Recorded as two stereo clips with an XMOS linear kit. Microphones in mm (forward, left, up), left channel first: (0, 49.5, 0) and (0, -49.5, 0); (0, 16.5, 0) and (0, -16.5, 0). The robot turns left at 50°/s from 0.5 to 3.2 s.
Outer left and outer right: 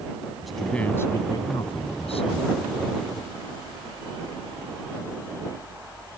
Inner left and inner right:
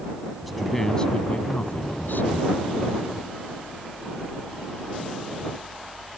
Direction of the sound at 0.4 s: Straight behind.